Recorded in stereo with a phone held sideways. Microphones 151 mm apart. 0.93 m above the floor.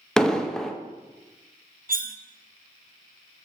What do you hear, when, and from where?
0.2 s an explosion: 5° left (ahead or behind), 0.8 m
1.9 s cutlery clinking: 65° right (ahead or behind), 0.5 m